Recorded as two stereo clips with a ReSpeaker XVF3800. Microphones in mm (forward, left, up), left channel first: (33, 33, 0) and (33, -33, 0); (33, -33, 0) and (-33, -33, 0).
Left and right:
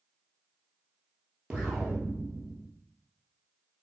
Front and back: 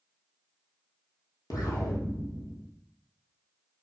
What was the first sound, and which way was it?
An explosion, 15° right.